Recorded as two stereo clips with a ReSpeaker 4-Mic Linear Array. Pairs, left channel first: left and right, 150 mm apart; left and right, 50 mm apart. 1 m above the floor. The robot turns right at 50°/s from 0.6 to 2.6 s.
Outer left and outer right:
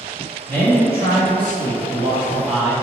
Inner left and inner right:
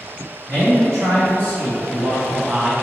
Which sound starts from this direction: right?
A man speaking, at 0.5 s.